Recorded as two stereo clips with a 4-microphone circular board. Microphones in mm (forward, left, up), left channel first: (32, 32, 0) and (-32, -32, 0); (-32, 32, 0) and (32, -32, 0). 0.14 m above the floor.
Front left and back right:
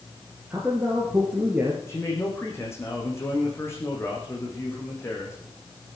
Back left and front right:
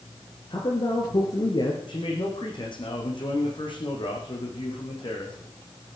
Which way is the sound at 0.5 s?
155° left.